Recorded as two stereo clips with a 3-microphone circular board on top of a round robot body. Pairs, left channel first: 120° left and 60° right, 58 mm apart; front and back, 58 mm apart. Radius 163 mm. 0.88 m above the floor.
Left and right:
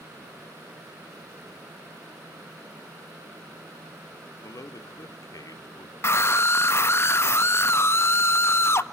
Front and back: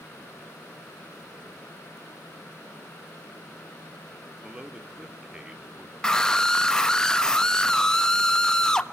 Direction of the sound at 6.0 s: 80° left.